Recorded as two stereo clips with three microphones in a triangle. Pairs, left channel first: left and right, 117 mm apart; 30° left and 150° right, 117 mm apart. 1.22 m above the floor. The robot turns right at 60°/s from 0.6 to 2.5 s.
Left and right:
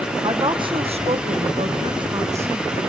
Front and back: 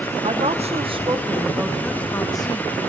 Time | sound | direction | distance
0.2 | a woman speaking | 135° right | 1.0 m